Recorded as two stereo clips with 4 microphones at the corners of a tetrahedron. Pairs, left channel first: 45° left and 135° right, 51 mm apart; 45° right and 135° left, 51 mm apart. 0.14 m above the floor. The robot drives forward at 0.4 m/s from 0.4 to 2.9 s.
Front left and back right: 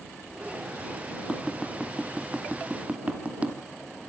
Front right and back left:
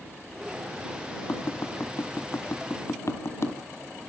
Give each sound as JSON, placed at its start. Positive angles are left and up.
{"t": 1.3, "sound": "tapping", "azimuth_deg": -55, "distance_m": 2.0}